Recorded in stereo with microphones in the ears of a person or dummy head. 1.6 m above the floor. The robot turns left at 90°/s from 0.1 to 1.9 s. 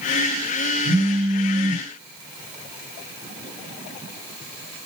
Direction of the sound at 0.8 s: Straight ahead.